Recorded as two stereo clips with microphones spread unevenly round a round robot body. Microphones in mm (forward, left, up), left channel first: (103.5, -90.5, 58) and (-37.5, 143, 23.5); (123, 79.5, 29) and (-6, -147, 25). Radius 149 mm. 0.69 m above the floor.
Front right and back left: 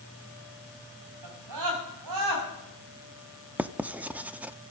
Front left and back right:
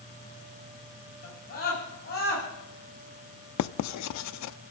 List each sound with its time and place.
1.2 s a scream: 125° left, 6 m; by 2.5 s 120° left, 6.5 m
3.6 s writing: 40° left, 0.6 m